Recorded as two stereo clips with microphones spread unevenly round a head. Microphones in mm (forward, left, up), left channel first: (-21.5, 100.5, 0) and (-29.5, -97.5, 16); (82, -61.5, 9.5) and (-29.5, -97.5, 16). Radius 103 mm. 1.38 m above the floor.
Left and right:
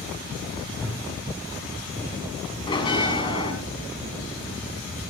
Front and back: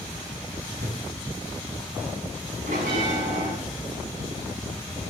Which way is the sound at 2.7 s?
155° left.